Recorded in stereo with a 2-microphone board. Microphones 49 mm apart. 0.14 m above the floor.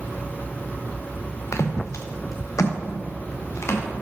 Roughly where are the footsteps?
Left.